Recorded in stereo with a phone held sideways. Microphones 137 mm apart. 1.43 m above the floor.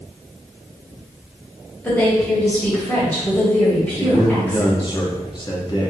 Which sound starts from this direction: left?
A man speaking, at 4.0 s.